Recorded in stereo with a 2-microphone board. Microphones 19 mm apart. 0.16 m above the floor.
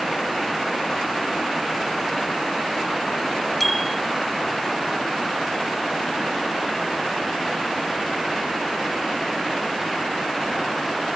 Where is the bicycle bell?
10° left (ahead or behind).